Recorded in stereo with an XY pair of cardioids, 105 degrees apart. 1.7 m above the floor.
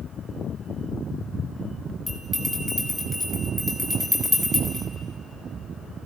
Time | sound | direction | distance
2.1 | a bell | 5° left | 4.5 m